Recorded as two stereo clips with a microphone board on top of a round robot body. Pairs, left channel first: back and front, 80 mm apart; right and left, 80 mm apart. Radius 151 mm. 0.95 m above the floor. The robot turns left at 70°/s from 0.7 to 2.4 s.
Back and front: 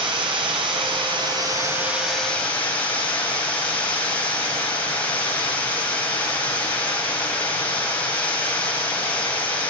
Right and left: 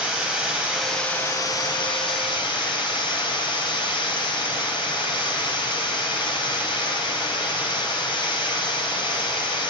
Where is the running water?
10° left, 4 m; by 9.7 s 105° right, 4 m.